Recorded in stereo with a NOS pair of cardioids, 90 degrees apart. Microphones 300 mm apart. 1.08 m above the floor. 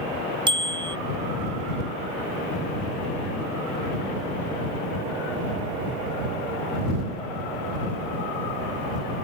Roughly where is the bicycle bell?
Ahead.